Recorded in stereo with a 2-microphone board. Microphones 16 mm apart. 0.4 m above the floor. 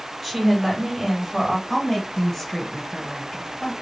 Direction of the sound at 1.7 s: 25° left (ahead or behind).